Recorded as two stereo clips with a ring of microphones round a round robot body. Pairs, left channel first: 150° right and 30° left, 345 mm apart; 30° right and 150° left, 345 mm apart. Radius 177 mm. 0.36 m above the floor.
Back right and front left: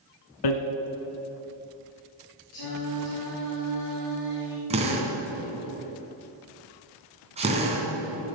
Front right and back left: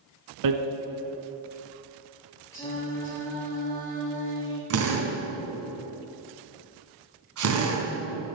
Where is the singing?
115° right, 5.5 m.